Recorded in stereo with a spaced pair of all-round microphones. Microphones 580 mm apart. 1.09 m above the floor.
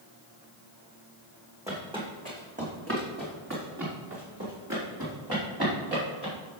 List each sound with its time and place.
1.7 s footsteps: 5° right (ahead or behind), 2.5 m; by 6.3 s 40° right (ahead or behind), 6 m